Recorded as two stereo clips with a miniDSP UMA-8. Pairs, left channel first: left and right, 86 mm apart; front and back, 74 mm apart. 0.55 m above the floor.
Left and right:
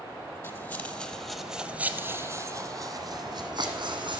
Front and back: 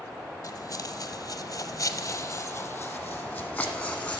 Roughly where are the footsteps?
Ahead left.